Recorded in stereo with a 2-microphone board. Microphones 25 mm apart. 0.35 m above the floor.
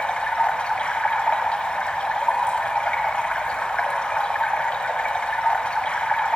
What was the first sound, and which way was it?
Running water, 50° left (ahead or behind).